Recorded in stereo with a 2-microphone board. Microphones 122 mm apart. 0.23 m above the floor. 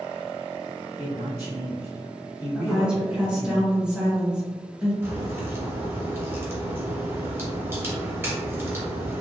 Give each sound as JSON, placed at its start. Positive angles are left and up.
{"t": 1.0, "sound": "a man speaking", "side_deg": -25, "distance_m": 1.2}
{"t": 2.5, "sound": "a woman speaking", "side_deg": -10, "distance_m": 1.2}
{"t": 5.0, "sound": "a crack", "side_deg": -20, "distance_m": 0.9}